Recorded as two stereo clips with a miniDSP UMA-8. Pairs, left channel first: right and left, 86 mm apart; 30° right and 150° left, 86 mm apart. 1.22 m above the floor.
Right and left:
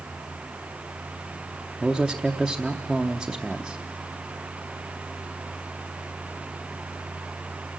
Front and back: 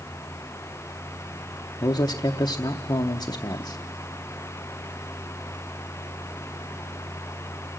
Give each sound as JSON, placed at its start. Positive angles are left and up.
{"t": 1.8, "sound": "a man speaking", "azimuth_deg": 0, "distance_m": 0.7}